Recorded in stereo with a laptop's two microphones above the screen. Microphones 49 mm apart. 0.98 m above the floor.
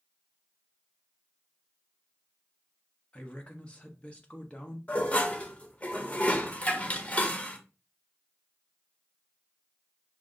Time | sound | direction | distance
3.1 | a woman speaking | 25° left (ahead or behind) | 1.1 m
4.9 | dishes clattering | 25° left (ahead or behind) | 0.5 m